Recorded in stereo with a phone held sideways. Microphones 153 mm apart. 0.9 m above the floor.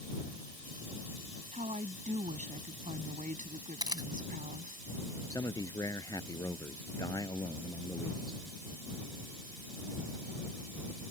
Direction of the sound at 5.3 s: 25° left (ahead or behind).